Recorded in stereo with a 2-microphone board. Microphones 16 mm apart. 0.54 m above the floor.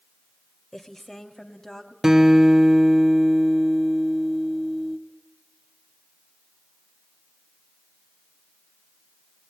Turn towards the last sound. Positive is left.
turn(degrees=-25)  # may be behind; listen again after turning